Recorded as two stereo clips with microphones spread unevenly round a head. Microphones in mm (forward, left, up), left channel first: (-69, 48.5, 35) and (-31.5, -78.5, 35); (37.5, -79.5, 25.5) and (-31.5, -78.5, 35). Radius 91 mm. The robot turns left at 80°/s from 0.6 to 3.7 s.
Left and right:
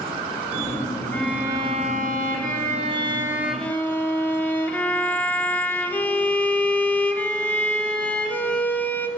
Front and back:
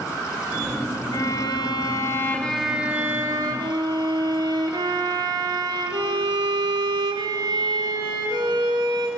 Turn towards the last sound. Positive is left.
turn(degrees=-175)